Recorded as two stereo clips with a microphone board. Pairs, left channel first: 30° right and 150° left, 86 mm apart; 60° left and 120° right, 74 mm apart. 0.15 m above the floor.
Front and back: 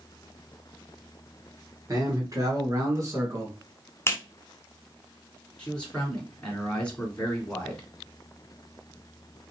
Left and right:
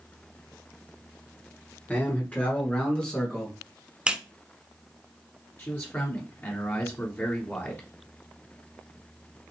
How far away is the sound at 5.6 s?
About 1.6 m.